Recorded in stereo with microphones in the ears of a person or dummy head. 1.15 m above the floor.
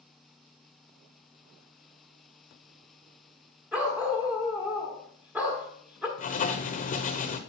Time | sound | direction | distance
3.7 | a dog barking | 5° right (ahead or behind) | 1.0 m
6.2 | writing | 40° left (ahead or behind) | 0.9 m